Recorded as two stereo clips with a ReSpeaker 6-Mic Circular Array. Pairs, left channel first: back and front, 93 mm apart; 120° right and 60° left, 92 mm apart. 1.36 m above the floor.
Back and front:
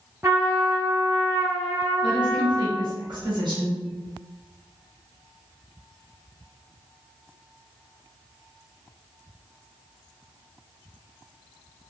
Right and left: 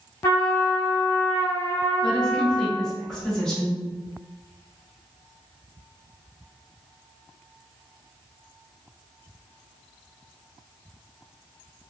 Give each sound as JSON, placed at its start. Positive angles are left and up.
{"t": 0.2, "sound": "a trumpet", "azimuth_deg": -60, "distance_m": 1.0}
{"t": 2.0, "sound": "a woman speaking", "azimuth_deg": -40, "distance_m": 1.3}